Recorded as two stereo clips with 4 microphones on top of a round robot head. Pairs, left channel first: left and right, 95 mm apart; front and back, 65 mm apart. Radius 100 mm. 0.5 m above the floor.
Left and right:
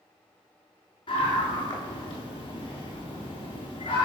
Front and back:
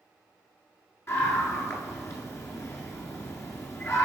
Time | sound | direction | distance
1.1 | a scream | 45° left | 7.5 m